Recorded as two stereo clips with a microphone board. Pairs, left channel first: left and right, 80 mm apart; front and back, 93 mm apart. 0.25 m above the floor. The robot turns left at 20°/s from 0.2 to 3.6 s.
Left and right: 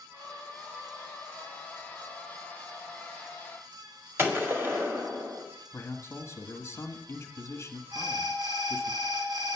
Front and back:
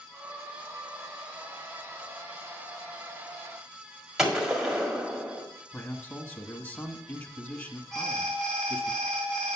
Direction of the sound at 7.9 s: 85° right.